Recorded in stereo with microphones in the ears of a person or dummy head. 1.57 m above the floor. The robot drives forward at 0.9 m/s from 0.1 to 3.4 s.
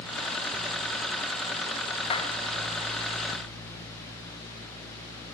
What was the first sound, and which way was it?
A clap, 30° left (ahead or behind).